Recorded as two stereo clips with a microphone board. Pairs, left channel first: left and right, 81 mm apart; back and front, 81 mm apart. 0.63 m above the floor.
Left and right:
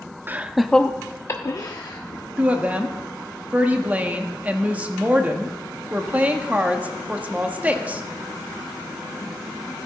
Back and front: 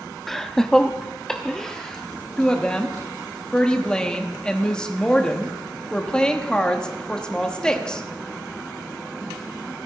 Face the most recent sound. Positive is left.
turn(degrees=-120)